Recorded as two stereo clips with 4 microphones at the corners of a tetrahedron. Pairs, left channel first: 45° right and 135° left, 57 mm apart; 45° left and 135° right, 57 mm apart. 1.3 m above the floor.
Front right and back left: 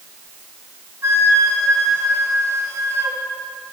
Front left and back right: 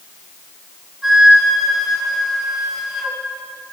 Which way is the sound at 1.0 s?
140° left.